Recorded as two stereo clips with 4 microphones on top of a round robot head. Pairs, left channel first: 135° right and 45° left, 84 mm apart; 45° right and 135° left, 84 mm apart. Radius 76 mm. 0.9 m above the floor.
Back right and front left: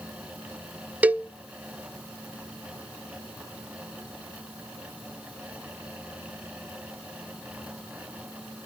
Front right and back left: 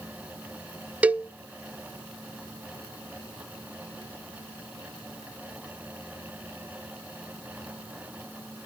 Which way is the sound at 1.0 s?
90° left.